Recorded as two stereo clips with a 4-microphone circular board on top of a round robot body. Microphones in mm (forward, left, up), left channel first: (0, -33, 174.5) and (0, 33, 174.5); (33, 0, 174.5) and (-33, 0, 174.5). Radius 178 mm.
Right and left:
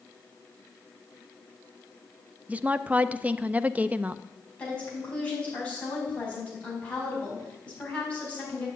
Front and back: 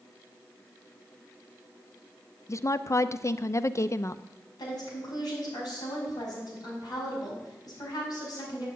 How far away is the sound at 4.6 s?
About 5 m.